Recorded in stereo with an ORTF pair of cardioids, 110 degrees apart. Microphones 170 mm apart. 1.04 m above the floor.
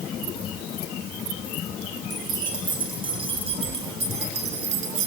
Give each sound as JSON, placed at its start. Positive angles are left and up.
{"t": 2.1, "sound": "keys jangling", "azimuth_deg": -25, "distance_m": 5.5}